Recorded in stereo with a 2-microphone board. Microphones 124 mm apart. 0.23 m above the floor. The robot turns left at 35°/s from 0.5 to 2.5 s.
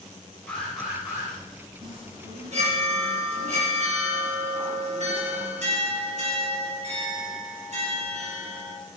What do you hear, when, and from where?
0.5 s an alarm: 10° left (ahead or behind), 5.5 m; by 1.3 s 20° right (ahead or behind), 5.5 m
1.8 s a chime: 30° right (ahead or behind), 5 m; by 8.8 s 55° right (ahead or behind), 5 m